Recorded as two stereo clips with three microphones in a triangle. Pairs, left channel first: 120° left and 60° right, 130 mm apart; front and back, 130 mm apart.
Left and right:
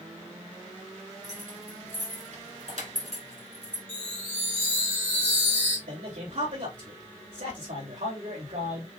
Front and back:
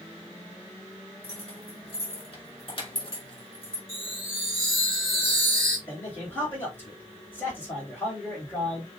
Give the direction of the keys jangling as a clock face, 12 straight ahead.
2 o'clock.